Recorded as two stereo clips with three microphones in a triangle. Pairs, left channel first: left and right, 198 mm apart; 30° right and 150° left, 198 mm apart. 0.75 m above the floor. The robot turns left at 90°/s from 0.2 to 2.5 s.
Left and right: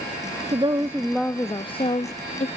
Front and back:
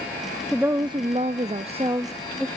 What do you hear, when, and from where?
0.5 s a woman speaking: 125° right, 0.6 m; by 2.5 s 60° left, 0.6 m